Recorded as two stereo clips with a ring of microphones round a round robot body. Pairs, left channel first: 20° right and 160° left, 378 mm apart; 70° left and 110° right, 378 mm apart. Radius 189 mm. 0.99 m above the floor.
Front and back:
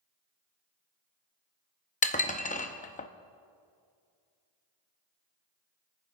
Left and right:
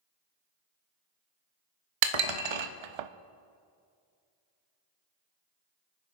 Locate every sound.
2.0 s dishes clattering: 95° right, 0.6 m